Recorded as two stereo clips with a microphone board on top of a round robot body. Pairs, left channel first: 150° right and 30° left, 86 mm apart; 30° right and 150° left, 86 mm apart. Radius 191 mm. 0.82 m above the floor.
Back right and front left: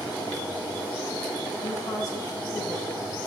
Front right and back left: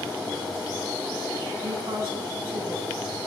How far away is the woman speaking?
About 7 m.